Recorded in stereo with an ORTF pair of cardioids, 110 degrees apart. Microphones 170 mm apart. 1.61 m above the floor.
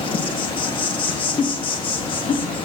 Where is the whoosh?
55° left, 2.5 m.